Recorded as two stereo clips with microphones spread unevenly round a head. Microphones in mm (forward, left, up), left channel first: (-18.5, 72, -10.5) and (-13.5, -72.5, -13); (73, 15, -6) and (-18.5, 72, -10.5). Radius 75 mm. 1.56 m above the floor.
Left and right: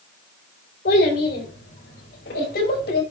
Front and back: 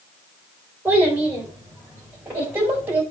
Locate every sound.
0.8 s a child speaking: 75° left, 4 m; by 3.0 s 80° left, 5.5 m